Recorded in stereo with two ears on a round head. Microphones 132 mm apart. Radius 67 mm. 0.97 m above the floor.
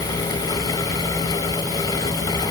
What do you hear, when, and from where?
Only background noise.